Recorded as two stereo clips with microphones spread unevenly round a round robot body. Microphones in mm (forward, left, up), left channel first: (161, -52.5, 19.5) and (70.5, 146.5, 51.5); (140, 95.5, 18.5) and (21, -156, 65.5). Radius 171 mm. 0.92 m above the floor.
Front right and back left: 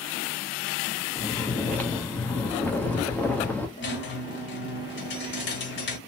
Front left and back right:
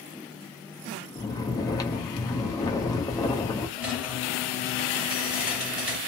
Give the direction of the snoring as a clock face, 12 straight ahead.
12 o'clock.